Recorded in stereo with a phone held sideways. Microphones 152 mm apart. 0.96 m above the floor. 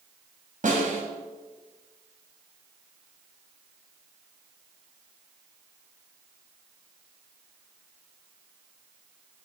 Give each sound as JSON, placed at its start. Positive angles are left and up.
{"t": 0.6, "sound": "a snare drum", "side_deg": -60, "distance_m": 3.0}